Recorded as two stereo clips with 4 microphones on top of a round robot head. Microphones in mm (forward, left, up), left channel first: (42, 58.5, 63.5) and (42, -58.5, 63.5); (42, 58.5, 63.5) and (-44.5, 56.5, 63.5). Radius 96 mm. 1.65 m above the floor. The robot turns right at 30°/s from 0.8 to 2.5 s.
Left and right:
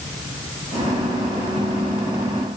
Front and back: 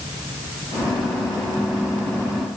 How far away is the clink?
I don't hear a clink.